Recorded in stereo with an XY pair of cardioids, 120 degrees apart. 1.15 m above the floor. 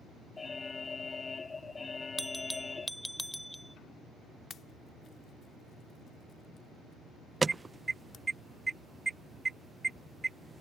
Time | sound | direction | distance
0.4 | an alarm | 25° left | ?
2.2 | a bell | straight ahead | ?
4.5 | a pop | 45° left | ?
7.4 | an alarm | 20° right | ?